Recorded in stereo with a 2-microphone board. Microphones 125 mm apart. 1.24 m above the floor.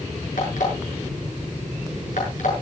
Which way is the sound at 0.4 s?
75° left (ahead or behind).